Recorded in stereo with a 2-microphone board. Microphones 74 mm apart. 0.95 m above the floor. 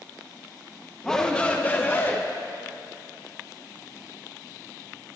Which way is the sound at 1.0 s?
5° left (ahead or behind).